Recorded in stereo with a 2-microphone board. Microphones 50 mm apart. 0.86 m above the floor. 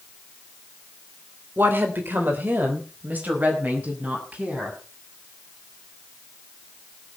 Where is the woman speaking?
45° right (ahead or behind), 3 m; by 4.8 s 30° right (ahead or behind), 7 m.